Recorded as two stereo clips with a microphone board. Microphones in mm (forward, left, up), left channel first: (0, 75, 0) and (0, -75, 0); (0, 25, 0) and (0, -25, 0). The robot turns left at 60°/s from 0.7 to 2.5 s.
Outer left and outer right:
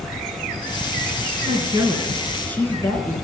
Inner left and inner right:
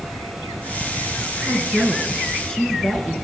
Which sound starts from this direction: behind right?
A woman speaking, at 1.4 s.